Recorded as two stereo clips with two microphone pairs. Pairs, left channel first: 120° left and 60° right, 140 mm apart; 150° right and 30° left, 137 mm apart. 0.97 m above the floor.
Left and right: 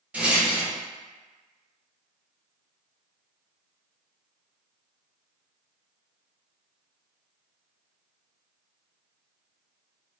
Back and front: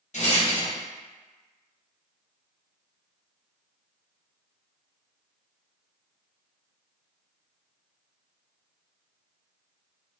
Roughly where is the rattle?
Behind right.